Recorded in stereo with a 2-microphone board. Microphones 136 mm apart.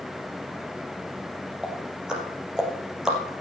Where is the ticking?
5° right (ahead or behind), 3 m.